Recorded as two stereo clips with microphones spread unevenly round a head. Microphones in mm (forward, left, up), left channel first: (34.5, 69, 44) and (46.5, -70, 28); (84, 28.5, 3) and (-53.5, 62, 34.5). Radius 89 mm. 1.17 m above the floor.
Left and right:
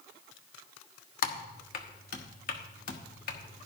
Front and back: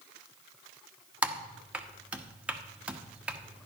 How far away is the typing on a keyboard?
About 1.0 m.